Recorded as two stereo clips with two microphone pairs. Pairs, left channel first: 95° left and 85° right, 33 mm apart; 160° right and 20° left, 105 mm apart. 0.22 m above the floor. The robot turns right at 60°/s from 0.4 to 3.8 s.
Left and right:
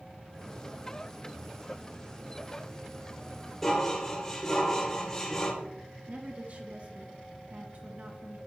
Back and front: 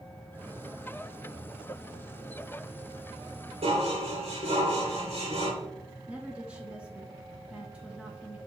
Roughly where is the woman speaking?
Ahead right.